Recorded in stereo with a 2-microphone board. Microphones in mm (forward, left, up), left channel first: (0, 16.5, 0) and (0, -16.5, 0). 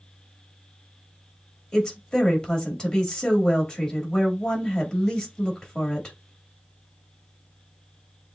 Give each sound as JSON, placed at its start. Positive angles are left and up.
{"t": 1.7, "sound": "a woman speaking", "side_deg": 20, "distance_m": 2.0}